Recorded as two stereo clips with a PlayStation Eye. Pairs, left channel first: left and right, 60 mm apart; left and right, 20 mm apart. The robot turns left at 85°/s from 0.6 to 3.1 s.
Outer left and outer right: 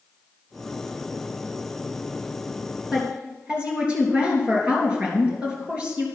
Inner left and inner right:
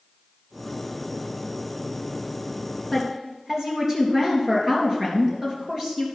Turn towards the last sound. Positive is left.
turn(degrees=-25)  # may be behind; listen again after turning